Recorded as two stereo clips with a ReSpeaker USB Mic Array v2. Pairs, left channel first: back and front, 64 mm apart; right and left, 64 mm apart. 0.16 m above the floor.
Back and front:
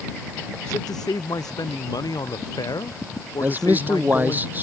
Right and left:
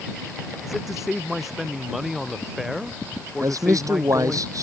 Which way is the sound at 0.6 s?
175° left.